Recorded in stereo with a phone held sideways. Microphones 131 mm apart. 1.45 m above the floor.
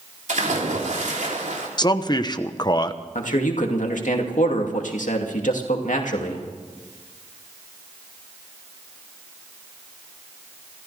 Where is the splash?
75° right (ahead or behind), 3 m.